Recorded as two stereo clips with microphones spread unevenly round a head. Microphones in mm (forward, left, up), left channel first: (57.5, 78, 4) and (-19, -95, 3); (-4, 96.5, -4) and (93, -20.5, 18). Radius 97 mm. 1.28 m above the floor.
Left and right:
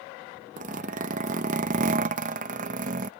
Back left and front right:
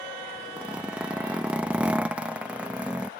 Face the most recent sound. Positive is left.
turn(degrees=-120)